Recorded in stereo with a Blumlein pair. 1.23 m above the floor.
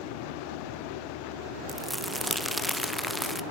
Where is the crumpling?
Straight ahead, 0.9 m.